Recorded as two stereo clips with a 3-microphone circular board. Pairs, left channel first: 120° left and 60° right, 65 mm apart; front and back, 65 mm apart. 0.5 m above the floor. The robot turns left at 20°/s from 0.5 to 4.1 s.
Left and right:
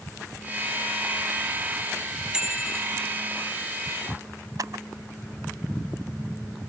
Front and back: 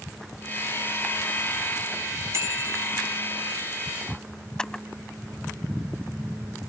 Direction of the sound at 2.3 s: 135° right.